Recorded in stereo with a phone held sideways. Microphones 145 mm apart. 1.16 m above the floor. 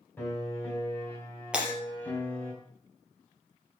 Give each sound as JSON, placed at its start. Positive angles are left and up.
{"t": 0.2, "sound": "a piano", "side_deg": 15, "distance_m": 4.5}
{"t": 1.5, "sound": "breaking glass", "side_deg": -5, "distance_m": 4.0}